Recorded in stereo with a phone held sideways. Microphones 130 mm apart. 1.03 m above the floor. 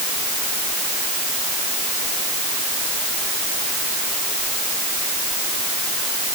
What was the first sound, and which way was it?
Only background noise.